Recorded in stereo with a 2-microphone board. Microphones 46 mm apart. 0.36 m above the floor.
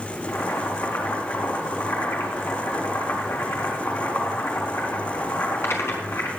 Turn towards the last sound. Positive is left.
turn(degrees=70)  # may be behind; listen again after turning